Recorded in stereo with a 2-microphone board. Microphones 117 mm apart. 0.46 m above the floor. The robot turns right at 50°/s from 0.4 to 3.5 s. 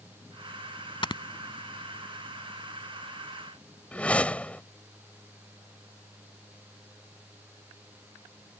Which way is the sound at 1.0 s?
50° left (ahead or behind).